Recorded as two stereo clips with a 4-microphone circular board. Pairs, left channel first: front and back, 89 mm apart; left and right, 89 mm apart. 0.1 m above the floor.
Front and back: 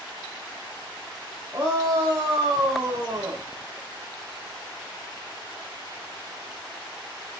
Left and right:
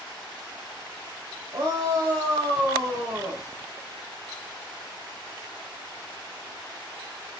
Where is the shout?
125° right, 6.5 m; by 3.4 s 140° right, 8 m.